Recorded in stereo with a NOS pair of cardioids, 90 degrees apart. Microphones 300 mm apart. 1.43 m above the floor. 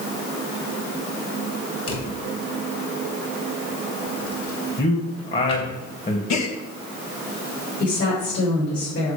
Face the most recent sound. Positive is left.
turn(degrees=60)